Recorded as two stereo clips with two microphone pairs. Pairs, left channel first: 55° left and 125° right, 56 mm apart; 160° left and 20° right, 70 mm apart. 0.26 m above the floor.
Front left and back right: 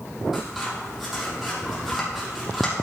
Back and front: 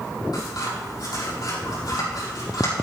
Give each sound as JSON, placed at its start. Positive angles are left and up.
{"t": 0.3, "sound": "scissors", "azimuth_deg": 150, "distance_m": 5.5}